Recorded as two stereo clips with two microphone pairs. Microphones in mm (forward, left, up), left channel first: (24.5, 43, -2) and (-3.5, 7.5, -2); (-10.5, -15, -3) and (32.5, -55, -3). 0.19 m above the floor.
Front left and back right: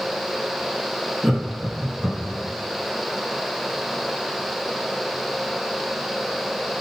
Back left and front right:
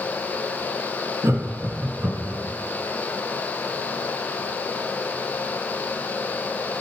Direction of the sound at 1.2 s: 40° right.